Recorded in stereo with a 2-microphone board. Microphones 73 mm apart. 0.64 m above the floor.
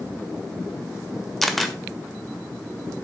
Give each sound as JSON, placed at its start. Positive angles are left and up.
{"t": 1.4, "sound": "a camera shutter", "side_deg": 0, "distance_m": 1.5}